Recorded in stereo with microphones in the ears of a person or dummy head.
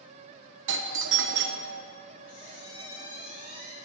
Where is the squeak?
25° right (ahead or behind), 1.7 m.